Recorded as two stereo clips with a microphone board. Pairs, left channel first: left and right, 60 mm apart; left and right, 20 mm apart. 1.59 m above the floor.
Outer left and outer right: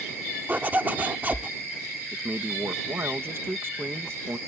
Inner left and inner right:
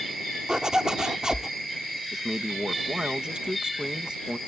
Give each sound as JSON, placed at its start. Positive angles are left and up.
{"t": 0.5, "sound": "a zipper", "side_deg": -35}
{"t": 2.1, "sound": "a man speaking", "side_deg": -45}